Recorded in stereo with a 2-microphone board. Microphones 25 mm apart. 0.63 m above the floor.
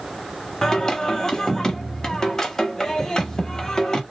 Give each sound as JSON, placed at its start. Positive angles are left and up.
{"t": 0.6, "sound": "singing", "side_deg": 20, "distance_m": 0.7}